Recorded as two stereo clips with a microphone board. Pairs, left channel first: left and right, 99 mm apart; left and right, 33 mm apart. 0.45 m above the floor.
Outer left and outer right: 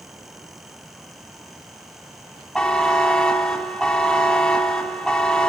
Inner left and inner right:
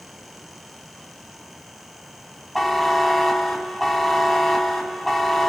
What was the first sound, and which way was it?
A buzzer, 10° left (ahead or behind).